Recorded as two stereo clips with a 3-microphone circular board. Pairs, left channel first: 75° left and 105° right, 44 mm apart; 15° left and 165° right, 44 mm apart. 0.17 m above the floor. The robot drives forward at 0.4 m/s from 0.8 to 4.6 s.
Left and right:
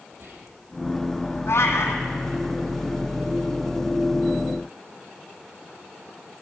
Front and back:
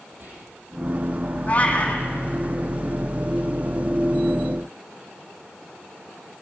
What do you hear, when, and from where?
0.1 s whispering: 125° right, 5.5 m
1.5 s a cat meowing: 75° left, 2.5 m; by 2.0 s 80° left, 2.5 m